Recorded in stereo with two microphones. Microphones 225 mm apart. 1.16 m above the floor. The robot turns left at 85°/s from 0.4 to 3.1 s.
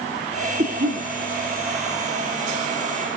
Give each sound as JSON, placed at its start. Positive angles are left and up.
{"t": 0.6, "sound": "a cough", "azimuth_deg": -35, "distance_m": 7.0}